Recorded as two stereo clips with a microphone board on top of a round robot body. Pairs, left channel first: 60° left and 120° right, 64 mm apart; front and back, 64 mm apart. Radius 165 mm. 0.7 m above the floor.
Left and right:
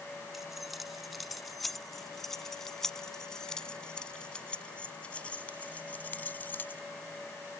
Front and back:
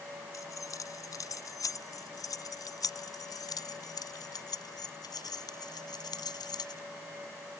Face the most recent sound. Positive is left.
turn(degrees=-5)